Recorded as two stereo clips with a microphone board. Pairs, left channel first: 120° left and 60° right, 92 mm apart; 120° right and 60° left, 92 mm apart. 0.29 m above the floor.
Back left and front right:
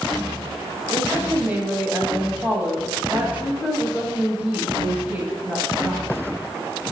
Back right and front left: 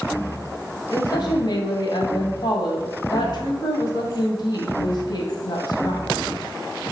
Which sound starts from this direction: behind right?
A woman speaking, at 0.9 s.